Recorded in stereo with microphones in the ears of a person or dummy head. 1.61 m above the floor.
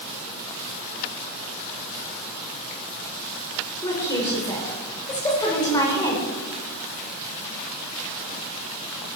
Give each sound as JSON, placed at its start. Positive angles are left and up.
{"t": 3.8, "sound": "a woman speaking", "side_deg": 20, "distance_m": 5.0}